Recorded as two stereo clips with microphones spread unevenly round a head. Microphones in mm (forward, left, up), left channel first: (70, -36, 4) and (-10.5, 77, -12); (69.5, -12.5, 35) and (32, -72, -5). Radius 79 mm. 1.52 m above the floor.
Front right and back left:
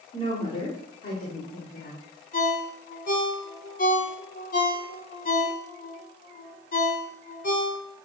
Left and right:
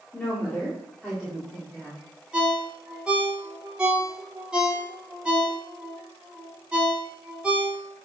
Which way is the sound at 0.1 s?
20° right.